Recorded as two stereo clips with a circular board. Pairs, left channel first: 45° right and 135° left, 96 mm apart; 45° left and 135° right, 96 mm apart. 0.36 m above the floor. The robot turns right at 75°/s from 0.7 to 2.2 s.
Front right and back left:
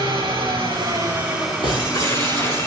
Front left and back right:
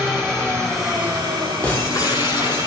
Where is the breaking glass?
30° right, 7.5 m; by 2.7 s 15° left, 7.5 m.